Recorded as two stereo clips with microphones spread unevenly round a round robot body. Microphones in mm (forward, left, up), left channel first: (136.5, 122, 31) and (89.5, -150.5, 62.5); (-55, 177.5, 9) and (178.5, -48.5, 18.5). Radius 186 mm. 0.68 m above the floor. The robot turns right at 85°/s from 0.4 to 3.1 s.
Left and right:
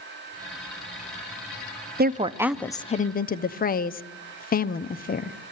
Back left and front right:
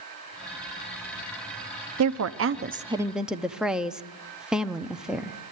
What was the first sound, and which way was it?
A woman speaking, 50° right.